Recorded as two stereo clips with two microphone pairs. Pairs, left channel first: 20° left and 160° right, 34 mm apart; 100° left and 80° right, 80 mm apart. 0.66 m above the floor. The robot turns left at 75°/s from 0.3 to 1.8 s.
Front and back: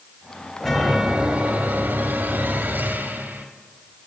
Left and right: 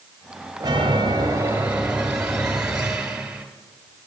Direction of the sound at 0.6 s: 65° right.